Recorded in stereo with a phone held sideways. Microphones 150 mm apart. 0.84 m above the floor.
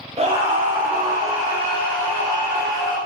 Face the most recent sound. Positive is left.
turn(degrees=-15)  # may be behind; listen again after turning